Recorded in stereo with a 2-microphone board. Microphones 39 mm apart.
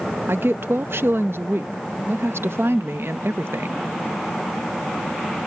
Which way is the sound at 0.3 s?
80° right.